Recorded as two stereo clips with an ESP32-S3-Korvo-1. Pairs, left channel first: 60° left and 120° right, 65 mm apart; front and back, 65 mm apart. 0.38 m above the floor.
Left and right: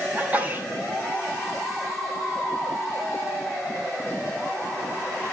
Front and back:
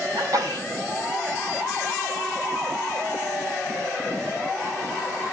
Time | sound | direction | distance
0.1 | a sneeze | 175° left | 3 m